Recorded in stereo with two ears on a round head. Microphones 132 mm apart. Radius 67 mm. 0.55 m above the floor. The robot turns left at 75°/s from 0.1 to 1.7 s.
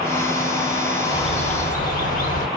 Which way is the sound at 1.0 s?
150° left.